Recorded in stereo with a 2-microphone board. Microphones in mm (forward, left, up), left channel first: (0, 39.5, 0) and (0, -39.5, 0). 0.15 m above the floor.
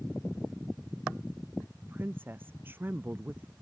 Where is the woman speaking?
25° right (ahead or behind).